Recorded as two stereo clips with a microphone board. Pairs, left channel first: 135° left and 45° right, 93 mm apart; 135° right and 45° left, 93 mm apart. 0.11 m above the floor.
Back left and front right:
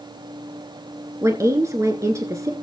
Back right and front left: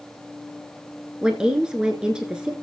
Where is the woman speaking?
30° right, 1.3 m.